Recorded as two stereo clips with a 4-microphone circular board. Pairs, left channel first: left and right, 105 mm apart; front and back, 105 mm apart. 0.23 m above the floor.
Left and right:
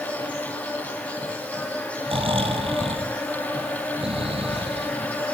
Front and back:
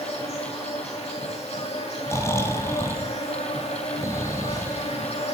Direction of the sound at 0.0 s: 15° left.